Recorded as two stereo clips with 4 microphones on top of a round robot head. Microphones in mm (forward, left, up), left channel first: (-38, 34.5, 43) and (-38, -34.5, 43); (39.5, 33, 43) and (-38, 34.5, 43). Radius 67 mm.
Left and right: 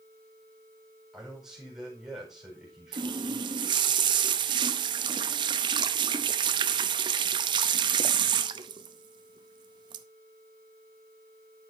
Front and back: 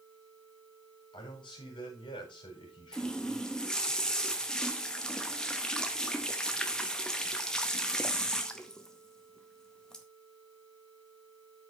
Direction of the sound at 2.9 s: 85° right.